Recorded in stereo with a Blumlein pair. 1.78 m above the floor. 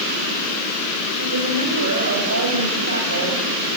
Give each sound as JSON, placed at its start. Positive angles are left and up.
{"t": 1.2, "sound": "a woman speaking", "azimuth_deg": -65, "distance_m": 8.5}